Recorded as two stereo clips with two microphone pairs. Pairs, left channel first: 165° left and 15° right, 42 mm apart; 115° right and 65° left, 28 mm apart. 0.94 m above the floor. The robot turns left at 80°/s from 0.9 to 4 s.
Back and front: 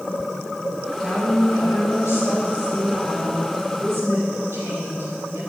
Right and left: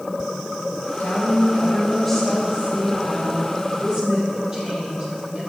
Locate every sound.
1.0 s a woman speaking: 120° right, 4.5 m; by 5.5 s straight ahead, 4.5 m